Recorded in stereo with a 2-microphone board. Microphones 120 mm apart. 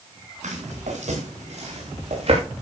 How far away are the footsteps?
About 6.5 m.